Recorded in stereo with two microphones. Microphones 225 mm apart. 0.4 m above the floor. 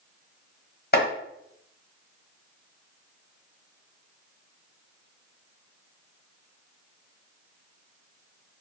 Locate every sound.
0.9 s chopping: 45° left (ahead or behind), 1.2 m